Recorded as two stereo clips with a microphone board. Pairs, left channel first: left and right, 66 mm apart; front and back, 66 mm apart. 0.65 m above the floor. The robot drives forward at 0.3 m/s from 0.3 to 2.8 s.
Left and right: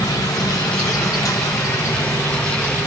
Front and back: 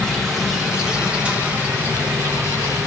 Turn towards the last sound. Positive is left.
turn(degrees=135)